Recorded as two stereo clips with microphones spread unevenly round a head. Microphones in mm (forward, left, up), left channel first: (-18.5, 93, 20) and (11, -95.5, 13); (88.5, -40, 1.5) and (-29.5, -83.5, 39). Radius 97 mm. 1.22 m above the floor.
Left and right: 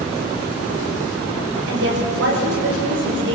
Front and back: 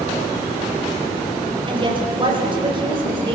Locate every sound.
1.7 s a woman speaking: 110° right, 6.5 m